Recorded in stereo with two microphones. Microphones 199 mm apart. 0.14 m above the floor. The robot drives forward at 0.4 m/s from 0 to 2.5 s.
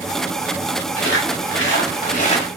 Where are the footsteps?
75° left (ahead or behind), 1.8 m; by 2.5 s 30° left (ahead or behind), 1.4 m.